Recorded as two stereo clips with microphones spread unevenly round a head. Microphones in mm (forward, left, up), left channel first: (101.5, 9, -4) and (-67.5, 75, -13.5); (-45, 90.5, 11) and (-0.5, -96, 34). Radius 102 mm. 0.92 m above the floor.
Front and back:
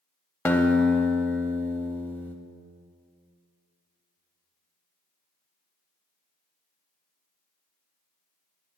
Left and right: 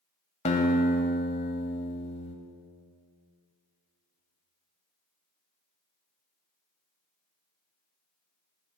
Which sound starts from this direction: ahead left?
A guitar, at 0.5 s.